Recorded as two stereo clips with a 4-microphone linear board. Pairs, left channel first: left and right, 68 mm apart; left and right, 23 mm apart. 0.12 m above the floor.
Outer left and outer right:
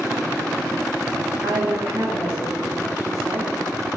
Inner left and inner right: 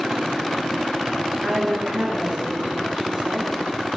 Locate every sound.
1.4 s a woman speaking: 60° right (ahead or behind), 7 m